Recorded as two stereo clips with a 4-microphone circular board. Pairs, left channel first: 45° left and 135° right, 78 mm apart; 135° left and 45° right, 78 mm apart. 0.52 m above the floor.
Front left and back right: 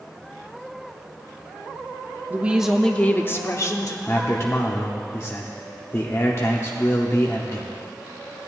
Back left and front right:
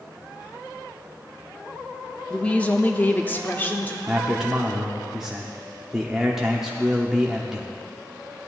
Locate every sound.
2.3 s a woman speaking: 160° right, 0.7 m; by 4.0 s 70° left, 1.1 m
4.1 s a man speaking: 35° left, 0.9 m